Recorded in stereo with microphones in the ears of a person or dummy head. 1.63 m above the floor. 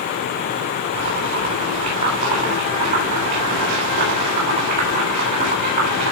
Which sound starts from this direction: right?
Boiling, at 0.9 s.